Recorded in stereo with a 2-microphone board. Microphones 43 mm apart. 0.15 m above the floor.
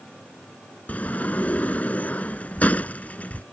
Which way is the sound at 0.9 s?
35° left (ahead or behind).